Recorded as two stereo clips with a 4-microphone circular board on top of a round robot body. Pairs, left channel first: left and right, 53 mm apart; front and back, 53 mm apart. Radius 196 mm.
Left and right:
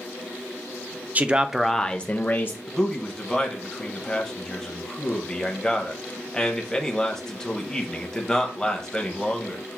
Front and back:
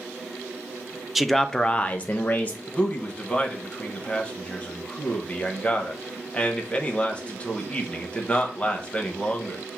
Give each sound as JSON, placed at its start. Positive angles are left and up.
{"t": 1.1, "sound": "a man speaking", "azimuth_deg": -95, "distance_m": 0.7}
{"t": 2.7, "sound": "a man speaking", "azimuth_deg": 25, "distance_m": 1.1}